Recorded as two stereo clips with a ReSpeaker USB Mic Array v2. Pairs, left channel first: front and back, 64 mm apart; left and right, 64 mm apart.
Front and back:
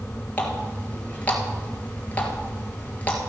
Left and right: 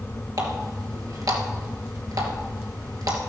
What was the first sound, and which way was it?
A running tap, 65° right.